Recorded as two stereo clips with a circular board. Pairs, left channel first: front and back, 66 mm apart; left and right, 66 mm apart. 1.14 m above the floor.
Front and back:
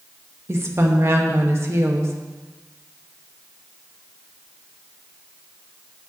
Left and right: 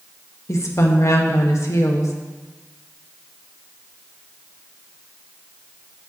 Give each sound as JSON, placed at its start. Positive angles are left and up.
{"t": 0.5, "sound": "a woman speaking", "azimuth_deg": 130, "distance_m": 1.3}